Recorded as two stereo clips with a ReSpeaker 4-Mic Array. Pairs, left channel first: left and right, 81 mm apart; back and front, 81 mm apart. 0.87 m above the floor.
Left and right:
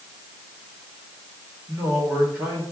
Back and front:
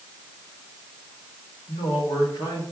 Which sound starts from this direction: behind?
A man speaking, at 1.7 s.